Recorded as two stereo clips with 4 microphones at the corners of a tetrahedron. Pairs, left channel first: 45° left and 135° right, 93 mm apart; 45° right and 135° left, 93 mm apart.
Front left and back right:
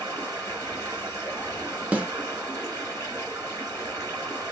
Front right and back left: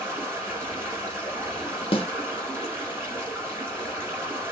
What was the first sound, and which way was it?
Running water, 165° right.